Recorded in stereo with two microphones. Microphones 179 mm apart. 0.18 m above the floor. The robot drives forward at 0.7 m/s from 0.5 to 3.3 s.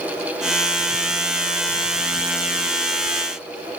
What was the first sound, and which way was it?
Only background noise.